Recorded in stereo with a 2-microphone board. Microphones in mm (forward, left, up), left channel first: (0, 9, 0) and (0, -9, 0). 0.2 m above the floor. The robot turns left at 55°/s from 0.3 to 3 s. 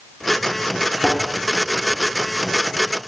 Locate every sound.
1.0 s a thud: 50° right (ahead or behind), 1.0 m; by 1.2 s 40° right (ahead or behind), 1.0 m